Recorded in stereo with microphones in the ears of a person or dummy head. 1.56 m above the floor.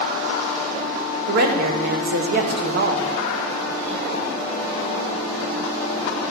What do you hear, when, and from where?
1.3 s a woman speaking: 55° right (ahead or behind), 1.3 m